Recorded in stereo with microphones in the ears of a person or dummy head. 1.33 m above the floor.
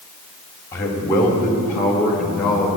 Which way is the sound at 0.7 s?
15° left (ahead or behind).